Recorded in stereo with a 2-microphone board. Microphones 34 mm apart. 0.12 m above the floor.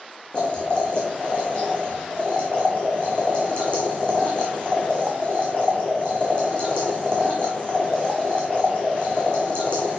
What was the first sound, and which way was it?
Boiling, 35° left (ahead or behind).